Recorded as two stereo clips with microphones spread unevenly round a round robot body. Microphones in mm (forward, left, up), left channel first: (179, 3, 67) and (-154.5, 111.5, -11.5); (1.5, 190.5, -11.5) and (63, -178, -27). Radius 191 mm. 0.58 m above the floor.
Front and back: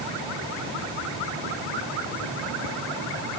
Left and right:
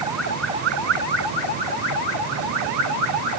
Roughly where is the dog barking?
I don't hear a dog barking.